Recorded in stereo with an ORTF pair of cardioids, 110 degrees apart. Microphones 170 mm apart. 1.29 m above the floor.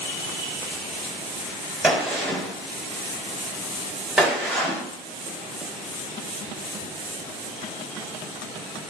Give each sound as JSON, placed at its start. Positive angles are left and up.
{"t": 1.8, "sound": "a gunshot", "azimuth_deg": -5, "distance_m": 3.0}